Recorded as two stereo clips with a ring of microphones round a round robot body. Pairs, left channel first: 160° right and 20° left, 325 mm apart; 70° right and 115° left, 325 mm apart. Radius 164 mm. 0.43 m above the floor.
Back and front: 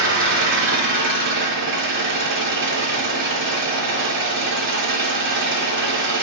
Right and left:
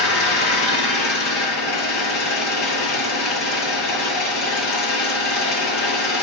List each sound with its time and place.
0.0 s an engine running: 35° right, 5 m